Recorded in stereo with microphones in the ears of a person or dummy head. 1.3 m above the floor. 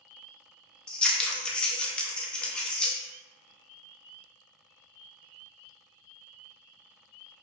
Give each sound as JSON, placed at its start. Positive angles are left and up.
{"t": 0.9, "sound": "scissors", "side_deg": 5, "distance_m": 0.6}